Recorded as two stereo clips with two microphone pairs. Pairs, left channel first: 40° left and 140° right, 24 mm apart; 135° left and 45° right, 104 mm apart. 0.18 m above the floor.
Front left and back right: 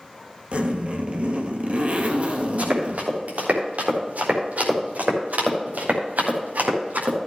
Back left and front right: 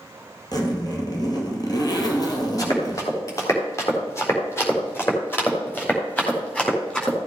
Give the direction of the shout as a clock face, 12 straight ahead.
No shout in this recording.